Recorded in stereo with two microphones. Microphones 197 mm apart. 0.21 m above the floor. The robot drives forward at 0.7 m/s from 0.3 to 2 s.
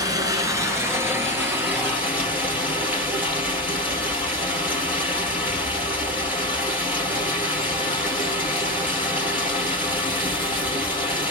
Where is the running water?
20° right (ahead or behind), 1.0 m; by 11.3 s 10° right (ahead or behind), 2 m.